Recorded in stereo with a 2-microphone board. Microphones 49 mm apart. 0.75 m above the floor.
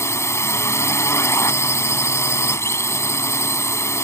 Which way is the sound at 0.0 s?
70° left (ahead or behind).